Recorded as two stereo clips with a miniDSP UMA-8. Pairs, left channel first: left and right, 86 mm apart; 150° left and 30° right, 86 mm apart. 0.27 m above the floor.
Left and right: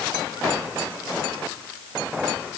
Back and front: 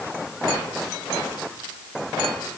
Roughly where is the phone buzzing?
I don't hear a phone buzzing.